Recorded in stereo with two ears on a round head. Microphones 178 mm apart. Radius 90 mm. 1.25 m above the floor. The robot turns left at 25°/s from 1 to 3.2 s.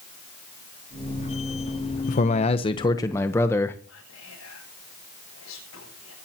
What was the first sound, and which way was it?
A man speaking, 40° left (ahead or behind).